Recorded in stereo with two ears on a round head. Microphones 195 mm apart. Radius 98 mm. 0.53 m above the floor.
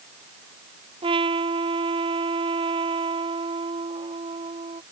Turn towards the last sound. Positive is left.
turn(degrees=-25)  # may be behind; listen again after turning